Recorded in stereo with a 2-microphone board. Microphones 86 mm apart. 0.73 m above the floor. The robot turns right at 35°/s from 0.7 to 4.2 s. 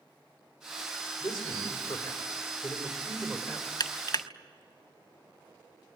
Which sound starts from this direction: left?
Crushing, at 3.8 s.